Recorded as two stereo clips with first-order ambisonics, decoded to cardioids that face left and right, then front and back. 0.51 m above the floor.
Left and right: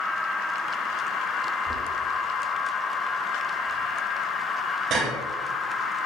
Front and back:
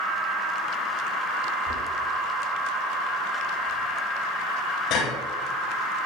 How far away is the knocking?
About 8 m.